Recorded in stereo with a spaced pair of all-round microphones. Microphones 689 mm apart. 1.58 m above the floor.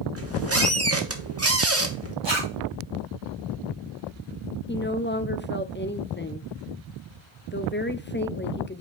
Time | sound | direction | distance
0.1 | a squeak | 20° right (ahead or behind) | 1.1 m
2.2 | a zipper | 40° right (ahead or behind) | 2.5 m
4.7 | a woman speaking | 15° left (ahead or behind) | 0.6 m